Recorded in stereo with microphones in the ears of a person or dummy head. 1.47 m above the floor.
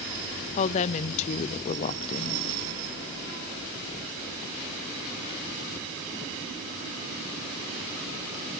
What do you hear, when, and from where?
0.6 s a woman speaking: 35° left (ahead or behind), 0.5 m